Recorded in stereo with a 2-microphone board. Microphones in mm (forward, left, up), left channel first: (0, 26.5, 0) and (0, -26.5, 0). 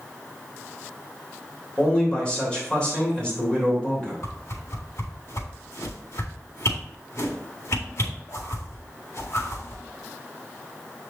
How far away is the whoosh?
About 1.9 m.